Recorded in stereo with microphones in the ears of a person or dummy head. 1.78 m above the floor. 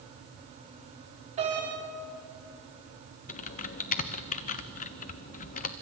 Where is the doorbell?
35° right (ahead or behind), 5.5 m.